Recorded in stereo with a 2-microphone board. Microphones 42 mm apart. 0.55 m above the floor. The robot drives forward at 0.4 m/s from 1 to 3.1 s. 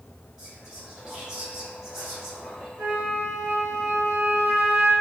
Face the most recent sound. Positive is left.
turn(degrees=-45)  # may be behind; listen again after turning